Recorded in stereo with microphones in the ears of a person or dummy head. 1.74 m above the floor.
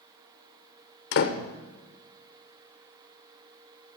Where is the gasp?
I don't hear a gasp.